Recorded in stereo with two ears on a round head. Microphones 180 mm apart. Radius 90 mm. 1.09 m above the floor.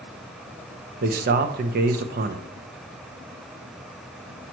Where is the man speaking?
45° right (ahead or behind), 0.7 m.